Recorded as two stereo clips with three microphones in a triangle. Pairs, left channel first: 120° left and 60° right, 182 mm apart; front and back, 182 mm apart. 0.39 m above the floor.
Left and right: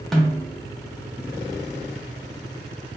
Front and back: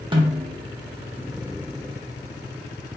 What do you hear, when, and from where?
0.1 s a snare drum: 155° right, 0.6 m